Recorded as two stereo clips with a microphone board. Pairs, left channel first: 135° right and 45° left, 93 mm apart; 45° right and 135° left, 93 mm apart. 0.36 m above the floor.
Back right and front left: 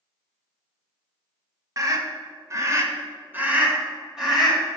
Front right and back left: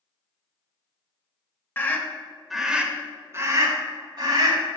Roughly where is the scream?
Ahead.